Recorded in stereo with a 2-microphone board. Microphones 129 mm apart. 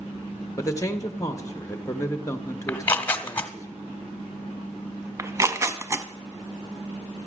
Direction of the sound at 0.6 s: 25° left (ahead or behind).